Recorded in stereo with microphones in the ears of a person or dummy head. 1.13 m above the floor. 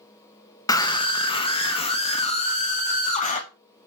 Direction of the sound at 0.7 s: 20° left (ahead or behind).